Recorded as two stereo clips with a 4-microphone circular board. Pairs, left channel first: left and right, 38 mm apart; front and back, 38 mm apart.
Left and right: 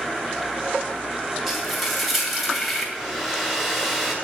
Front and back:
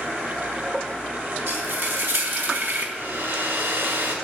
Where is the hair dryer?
175° right, 2.5 m.